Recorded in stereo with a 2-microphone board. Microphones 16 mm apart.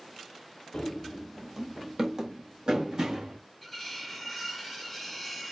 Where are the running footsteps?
45° left (ahead or behind), 0.8 m; by 3.4 s 50° right (ahead or behind), 2.5 m.